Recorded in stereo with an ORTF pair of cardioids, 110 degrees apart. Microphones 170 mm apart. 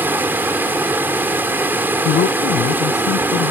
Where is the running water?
10° right.